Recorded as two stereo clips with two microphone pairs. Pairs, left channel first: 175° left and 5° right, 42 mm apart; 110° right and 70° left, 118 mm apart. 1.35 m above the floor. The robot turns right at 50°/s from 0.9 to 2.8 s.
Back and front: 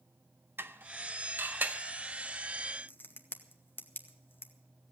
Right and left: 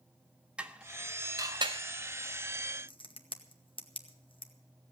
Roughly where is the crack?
Behind right.